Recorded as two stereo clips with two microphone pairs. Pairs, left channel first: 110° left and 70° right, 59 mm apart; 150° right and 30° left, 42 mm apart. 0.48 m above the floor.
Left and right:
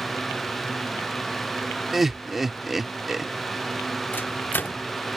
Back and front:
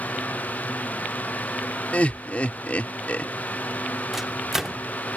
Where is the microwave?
100° left.